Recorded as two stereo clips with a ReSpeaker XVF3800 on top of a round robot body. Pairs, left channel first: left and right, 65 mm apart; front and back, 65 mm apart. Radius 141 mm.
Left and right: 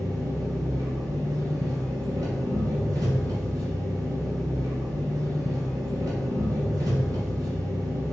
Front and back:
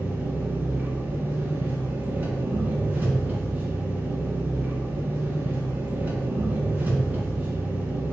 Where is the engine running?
115° right, 1.9 m.